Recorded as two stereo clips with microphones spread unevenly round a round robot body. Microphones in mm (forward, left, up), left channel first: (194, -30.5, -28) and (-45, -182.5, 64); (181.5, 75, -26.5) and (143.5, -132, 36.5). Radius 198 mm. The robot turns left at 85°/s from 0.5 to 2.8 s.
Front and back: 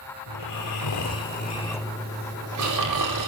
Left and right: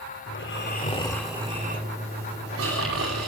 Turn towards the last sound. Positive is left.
turn(degrees=-140)